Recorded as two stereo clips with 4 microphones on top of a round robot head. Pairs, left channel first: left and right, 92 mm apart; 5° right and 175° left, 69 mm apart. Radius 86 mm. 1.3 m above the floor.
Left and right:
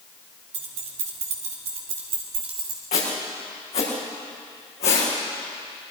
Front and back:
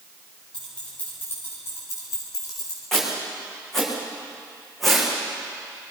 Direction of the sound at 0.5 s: 85° right.